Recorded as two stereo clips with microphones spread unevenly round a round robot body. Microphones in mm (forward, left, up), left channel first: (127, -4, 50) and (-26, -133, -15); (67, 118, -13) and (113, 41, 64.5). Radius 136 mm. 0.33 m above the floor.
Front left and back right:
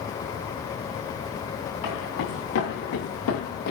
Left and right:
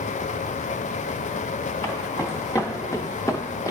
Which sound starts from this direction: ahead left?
Footsteps, at 1.8 s.